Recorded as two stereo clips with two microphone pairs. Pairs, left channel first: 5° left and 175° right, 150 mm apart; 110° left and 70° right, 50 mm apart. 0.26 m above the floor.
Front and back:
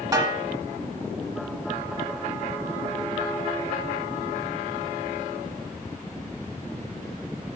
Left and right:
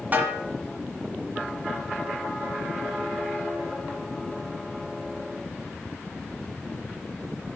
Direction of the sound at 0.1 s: 115° right.